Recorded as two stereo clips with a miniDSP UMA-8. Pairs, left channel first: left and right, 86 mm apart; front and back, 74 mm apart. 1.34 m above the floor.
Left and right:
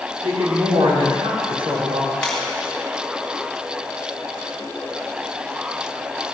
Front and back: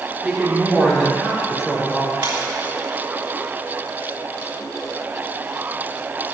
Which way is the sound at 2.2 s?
170° left.